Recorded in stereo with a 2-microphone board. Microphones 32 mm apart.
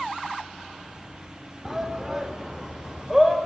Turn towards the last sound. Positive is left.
turn(degrees=-10)  # may be behind; listen again after turning